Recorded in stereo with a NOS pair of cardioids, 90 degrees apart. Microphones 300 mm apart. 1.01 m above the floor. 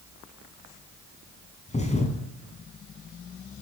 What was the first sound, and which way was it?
A thud, 20° left.